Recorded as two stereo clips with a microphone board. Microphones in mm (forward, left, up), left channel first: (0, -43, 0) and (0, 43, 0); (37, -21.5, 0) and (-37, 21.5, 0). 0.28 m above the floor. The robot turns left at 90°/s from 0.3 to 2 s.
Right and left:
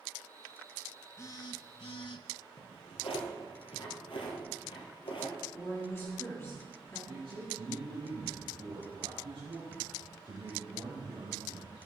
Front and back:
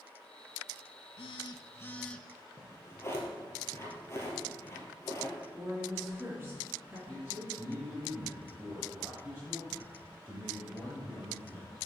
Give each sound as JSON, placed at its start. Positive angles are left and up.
{"t": 1.2, "sound": "a phone buzzing", "azimuth_deg": -35, "distance_m": 0.6}
{"t": 2.6, "sound": "a drawer", "azimuth_deg": -90, "distance_m": 2.0}
{"t": 5.5, "sound": "a woman speaking", "azimuth_deg": -145, "distance_m": 4.0}
{"t": 7.1, "sound": "a man speaking", "azimuth_deg": 85, "distance_m": 3.5}